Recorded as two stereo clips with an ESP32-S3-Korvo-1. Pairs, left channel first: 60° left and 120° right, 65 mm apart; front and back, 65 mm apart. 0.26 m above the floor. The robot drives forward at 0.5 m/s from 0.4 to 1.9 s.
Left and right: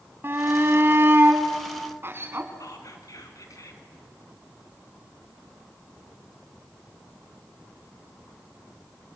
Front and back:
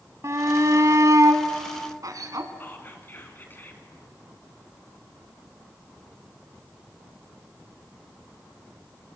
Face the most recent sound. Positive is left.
turn(degrees=55)